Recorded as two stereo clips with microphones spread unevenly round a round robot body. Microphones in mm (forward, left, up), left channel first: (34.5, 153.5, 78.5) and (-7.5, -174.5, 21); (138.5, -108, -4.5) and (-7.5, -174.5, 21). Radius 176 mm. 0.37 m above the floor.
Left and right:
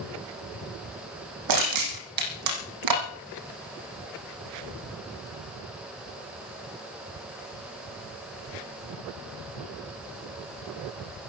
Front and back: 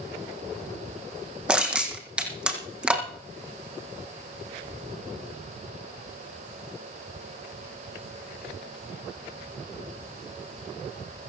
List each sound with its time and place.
1.5 s crushing: 70° right, 5 m